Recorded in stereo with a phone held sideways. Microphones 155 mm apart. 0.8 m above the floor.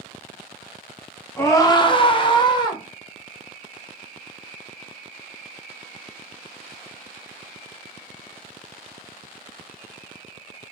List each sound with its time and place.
1.4 s a scream: 15° left (ahead or behind), 0.5 m; by 2.8 s 25° left (ahead or behind), 1.0 m